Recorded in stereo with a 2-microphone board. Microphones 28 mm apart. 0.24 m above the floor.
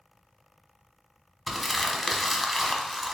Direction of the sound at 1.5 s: Centre (ahead or behind).